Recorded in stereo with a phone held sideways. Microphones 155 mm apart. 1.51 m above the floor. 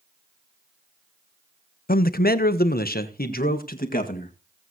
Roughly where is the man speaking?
Left.